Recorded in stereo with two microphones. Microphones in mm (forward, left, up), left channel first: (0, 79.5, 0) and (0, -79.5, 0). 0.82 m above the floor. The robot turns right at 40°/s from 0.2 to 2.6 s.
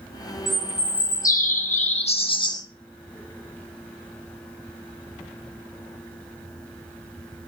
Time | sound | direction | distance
0.5 | a bird | 65° left | 0.7 m